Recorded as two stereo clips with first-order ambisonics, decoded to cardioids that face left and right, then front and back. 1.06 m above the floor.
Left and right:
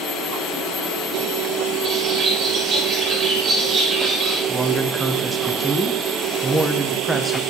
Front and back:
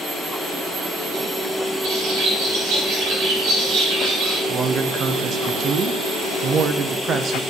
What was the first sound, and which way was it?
A bird, 160° right.